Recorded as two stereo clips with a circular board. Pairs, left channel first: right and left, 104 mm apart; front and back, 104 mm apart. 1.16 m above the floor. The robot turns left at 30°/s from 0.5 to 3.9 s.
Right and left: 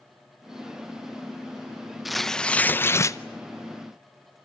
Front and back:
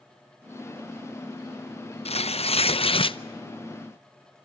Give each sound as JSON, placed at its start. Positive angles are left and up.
{"t": 2.0, "sound": "tearing paper", "azimuth_deg": 5, "distance_m": 0.6}